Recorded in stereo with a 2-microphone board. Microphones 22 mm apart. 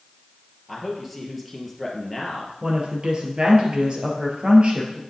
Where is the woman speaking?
45° right (ahead or behind), 3 m.